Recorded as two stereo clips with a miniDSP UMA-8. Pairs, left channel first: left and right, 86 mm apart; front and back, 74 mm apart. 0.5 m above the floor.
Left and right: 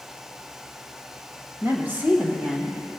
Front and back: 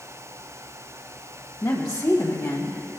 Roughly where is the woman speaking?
Ahead right.